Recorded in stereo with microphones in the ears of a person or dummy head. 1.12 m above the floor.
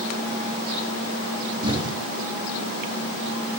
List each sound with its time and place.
1.6 s an explosion: 25° right (ahead or behind), 1.6 m